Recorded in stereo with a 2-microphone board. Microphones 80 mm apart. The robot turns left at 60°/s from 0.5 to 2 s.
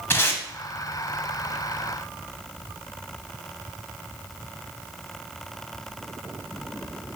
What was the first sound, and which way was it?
Tape being pulled, 30° left (ahead or behind).